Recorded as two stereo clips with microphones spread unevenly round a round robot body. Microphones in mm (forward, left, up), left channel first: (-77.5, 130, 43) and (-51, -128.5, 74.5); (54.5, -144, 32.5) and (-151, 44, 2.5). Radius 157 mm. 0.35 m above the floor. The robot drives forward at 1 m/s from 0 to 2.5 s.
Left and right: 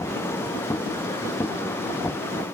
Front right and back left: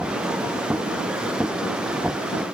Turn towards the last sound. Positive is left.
No sound to turn to.